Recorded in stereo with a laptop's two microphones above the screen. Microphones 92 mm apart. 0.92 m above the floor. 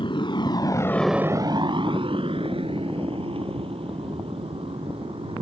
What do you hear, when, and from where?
0.0 s a motorcycle: 65° left (ahead or behind); by 5.4 s 90° right